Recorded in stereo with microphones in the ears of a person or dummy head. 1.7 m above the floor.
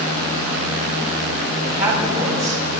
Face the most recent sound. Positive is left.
turn(degrees=-40)  # may be behind; listen again after turning